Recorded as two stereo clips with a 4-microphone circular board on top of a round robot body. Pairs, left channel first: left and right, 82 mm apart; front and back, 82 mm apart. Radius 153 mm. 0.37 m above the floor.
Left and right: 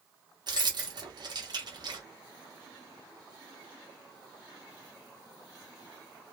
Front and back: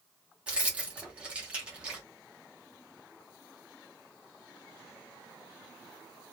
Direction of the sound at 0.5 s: 105° right.